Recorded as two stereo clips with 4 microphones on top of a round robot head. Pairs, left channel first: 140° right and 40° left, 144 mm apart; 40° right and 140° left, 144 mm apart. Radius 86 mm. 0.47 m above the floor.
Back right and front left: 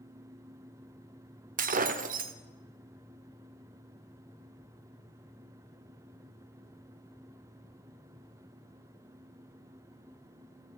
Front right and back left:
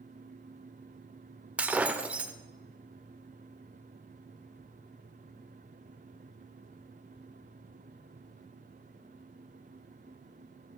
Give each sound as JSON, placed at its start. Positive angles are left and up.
{"t": 1.6, "sound": "breaking glass", "azimuth_deg": 60, "distance_m": 0.8}